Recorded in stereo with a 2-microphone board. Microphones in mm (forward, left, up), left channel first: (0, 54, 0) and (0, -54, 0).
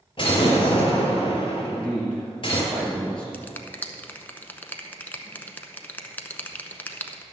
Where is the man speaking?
10° left (ahead or behind), 3 m.